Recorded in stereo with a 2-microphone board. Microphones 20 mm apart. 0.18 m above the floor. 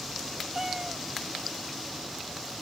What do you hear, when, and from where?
0.6 s a cat meowing: 30° right (ahead or behind)